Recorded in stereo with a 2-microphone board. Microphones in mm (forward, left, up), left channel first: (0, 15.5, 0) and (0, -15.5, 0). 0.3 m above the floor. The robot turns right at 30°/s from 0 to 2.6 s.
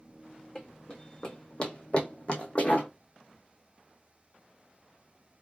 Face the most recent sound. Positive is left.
turn(degrees=50)  # may be behind; listen again after turning